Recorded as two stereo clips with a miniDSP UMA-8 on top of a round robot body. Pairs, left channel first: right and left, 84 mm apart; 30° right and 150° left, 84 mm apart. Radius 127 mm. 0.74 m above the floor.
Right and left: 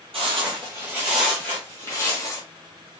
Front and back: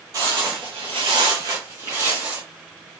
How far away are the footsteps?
About 1.0 m.